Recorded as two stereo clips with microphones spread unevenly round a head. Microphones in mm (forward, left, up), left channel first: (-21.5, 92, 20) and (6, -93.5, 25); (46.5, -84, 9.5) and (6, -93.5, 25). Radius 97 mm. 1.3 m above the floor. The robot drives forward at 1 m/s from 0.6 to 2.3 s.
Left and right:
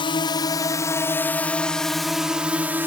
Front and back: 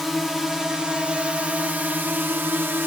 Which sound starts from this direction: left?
A drone, at 0.0 s.